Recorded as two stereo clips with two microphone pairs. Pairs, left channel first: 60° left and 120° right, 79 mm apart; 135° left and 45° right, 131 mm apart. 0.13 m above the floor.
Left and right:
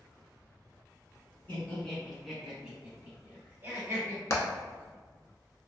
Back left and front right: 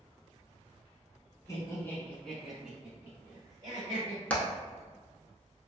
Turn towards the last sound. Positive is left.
turn(degrees=60)